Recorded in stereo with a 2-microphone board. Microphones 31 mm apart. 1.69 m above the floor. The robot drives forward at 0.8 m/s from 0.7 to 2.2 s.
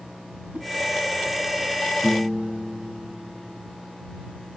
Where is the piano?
35° right (ahead or behind), 6.5 m.